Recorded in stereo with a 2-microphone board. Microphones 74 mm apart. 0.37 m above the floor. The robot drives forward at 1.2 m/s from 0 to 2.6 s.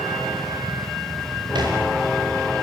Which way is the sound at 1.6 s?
75° right (ahead or behind).